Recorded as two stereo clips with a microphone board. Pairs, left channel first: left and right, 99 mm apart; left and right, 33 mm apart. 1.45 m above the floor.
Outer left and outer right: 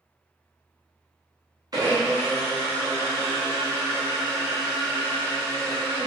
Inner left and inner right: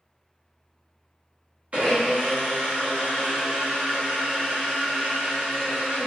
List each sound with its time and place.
1.7 s a blender: 40° right (ahead or behind), 1.0 m